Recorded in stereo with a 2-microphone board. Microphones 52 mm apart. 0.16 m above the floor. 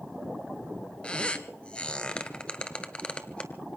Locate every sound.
1.0 s a squeak: 20° left (ahead or behind), 1.1 m